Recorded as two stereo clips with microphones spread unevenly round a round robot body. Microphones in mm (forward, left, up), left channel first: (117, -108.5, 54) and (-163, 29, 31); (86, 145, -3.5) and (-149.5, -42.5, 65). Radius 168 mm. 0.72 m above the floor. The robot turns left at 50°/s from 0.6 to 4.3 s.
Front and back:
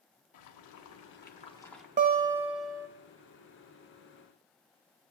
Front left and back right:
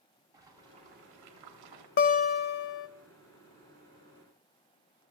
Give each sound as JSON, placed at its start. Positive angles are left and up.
{"t": 0.3, "sound": "boiling", "azimuth_deg": -55, "distance_m": 1.1}
{"t": 2.0, "sound": "a guitar", "azimuth_deg": 90, "distance_m": 0.5}